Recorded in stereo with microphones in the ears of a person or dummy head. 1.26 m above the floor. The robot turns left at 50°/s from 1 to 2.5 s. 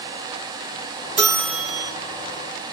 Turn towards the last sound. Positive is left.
turn(degrees=145)